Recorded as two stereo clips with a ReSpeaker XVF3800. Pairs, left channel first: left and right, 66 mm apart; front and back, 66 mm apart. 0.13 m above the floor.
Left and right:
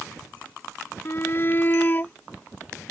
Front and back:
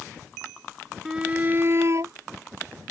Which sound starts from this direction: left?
A shout, at 1.1 s.